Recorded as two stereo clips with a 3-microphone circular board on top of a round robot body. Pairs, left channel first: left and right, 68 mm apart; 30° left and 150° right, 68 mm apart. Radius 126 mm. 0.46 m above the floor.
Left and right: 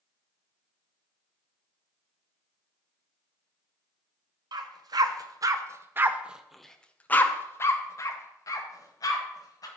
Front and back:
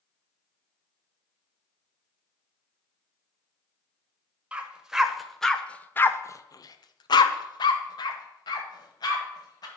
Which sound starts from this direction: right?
A dog barking, at 4.5 s.